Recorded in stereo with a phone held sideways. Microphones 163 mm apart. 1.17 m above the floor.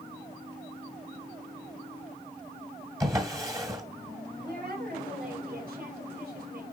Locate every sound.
3.0 s a drawer: 20° right (ahead or behind), 1.8 m
4.4 s a woman speaking: 65° right (ahead or behind), 3 m